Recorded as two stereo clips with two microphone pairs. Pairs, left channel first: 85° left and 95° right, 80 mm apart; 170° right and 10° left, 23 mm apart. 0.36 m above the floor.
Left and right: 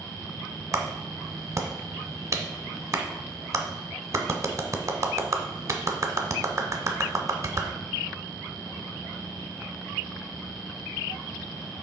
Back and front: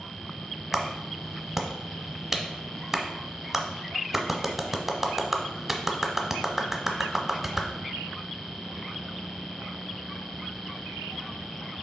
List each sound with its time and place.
0.7 s a clap: 65° right, 0.8 m